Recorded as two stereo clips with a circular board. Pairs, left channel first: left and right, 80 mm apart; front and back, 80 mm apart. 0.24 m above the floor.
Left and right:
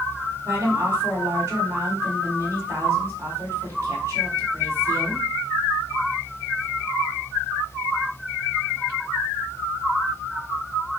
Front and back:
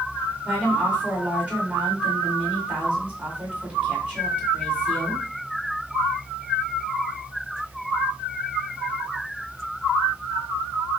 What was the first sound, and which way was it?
A woman speaking, 120° right.